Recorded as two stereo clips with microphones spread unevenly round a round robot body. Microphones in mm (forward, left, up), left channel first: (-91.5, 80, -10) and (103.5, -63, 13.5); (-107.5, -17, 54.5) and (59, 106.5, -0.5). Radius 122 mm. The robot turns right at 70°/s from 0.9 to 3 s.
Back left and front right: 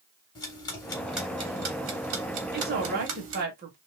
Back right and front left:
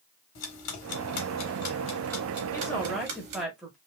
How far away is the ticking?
About 1.2 m.